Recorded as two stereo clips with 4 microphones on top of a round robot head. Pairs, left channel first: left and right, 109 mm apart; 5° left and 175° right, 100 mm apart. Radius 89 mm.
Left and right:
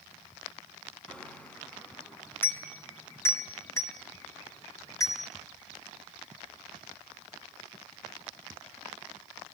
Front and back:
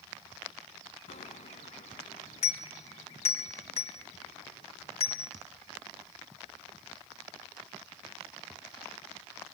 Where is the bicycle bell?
5° left, 3 m; by 5.3 s 30° left, 4.5 m.